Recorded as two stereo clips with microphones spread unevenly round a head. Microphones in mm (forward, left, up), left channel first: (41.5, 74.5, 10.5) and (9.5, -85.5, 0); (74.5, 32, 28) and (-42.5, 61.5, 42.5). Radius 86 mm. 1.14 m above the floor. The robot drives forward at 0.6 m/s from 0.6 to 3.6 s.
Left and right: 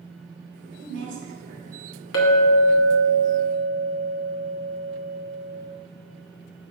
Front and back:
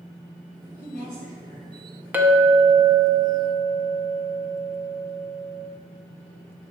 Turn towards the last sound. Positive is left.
turn(degrees=130)